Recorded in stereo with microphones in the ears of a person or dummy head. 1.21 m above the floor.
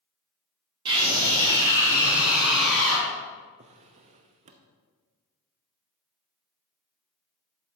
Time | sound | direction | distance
0.8 | a scream | 30° right (ahead or behind) | 3.5 m
3.6 | a drawer | 40° right (ahead or behind) | 0.8 m